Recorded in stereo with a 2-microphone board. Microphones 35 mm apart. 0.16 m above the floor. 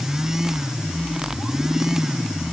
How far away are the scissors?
I don't hear scissors.